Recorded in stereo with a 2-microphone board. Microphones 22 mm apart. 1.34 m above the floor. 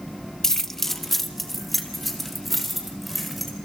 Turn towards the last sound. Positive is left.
turn(degrees=0)  # may be behind; listen again after turning